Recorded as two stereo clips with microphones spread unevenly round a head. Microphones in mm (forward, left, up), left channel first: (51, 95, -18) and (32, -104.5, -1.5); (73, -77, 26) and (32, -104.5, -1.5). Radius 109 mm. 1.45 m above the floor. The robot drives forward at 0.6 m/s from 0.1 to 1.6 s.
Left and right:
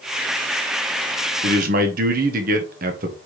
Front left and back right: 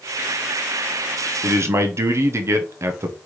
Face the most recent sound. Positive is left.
turn(degrees=-150)